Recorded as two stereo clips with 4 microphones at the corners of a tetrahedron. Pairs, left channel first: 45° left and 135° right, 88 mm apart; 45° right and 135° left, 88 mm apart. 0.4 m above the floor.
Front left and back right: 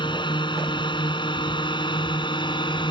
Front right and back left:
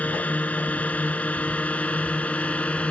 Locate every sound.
0.0 s a drone: 25° left; by 2.9 s 30° left